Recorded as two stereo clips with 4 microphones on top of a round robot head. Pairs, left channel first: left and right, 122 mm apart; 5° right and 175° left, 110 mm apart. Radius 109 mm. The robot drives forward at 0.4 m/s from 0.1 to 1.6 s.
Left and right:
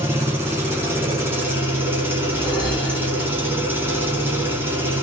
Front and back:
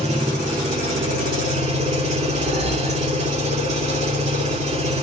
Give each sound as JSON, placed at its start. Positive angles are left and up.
{"t": 0.0, "sound": "an engine running", "azimuth_deg": -160, "distance_m": 3.0}
{"t": 2.3, "sound": "a whoosh", "azimuth_deg": 175, "distance_m": 4.0}